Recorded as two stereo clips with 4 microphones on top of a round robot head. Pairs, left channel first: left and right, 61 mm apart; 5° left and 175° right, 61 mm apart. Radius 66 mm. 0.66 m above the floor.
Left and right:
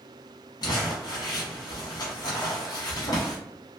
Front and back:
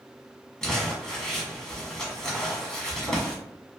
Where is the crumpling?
85° left, 1.2 m.